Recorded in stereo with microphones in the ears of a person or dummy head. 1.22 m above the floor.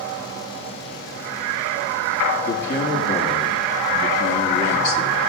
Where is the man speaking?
55° left (ahead or behind), 3.5 m.